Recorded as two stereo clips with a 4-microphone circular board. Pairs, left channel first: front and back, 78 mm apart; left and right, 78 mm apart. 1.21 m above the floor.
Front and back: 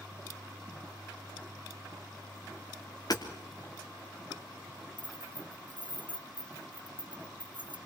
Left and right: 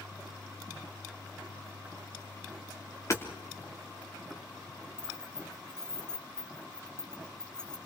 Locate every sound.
3.1 s hammering: 40° left, 3 m
5.0 s keys jangling: 170° left, 1.1 m